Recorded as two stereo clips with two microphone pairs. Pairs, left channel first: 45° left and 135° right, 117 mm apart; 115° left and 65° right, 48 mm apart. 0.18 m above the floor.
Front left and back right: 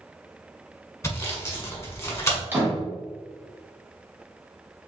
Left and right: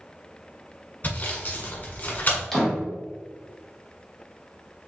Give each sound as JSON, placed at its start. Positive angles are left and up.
{"t": 1.0, "sound": "sawing", "azimuth_deg": 95, "distance_m": 1.2}
{"t": 2.5, "sound": "a door slam", "azimuth_deg": -175, "distance_m": 1.0}